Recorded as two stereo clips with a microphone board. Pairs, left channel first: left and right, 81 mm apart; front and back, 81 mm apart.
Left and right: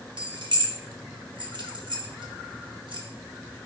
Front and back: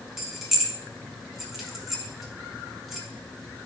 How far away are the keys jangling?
About 1.3 m.